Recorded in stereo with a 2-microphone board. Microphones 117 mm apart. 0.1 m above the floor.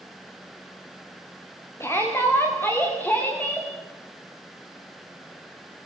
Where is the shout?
20° left (ahead or behind), 8 m; by 3.7 s 15° left (ahead or behind), 8.5 m.